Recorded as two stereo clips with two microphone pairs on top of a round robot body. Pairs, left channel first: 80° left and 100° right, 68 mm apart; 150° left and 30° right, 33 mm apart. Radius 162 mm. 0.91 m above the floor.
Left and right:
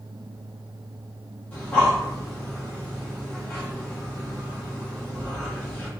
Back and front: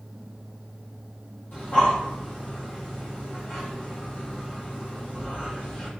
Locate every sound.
1.5 s breathing: 155° left, 1.6 m